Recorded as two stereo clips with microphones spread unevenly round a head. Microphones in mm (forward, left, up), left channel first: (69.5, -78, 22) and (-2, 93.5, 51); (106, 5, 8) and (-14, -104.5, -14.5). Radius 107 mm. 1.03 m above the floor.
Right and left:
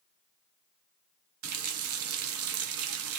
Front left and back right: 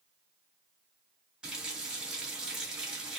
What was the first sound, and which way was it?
A running tap, 135° left.